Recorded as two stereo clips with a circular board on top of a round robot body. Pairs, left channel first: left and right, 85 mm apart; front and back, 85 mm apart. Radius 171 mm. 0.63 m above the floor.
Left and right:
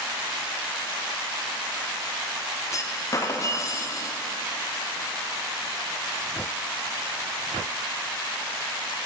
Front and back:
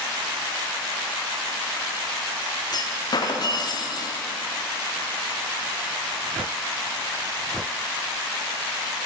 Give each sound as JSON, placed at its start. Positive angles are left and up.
{"t": 2.7, "sound": "a clunk", "azimuth_deg": 40, "distance_m": 1.0}